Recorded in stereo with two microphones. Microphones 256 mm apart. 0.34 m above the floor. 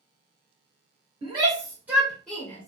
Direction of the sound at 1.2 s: 20° right (ahead or behind).